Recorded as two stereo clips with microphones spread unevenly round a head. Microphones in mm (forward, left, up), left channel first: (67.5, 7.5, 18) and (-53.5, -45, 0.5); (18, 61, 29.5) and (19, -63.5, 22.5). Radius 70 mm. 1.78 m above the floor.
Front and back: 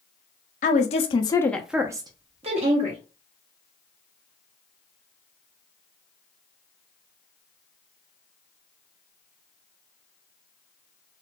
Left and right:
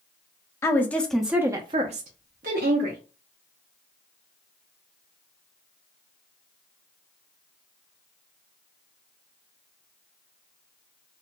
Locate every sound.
0.6 s a woman speaking: 25° left, 0.8 m; by 3.0 s 120° right, 1.0 m